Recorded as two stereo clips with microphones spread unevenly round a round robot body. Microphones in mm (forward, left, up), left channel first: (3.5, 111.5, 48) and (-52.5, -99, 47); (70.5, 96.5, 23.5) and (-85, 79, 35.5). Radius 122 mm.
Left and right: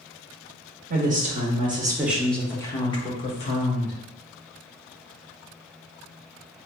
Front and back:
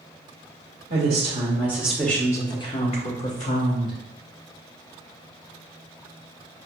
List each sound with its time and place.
0.9 s a woman speaking: 135° right, 1.0 m; by 4.0 s 25° left, 1.4 m